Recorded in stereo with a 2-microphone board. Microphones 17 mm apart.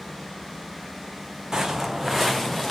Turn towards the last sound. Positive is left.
turn(degrees=5)  # may be behind; listen again after turning